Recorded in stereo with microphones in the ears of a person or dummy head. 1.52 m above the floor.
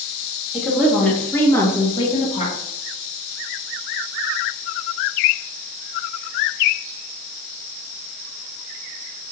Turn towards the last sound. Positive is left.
turn(degrees=40)  # may be behind; listen again after turning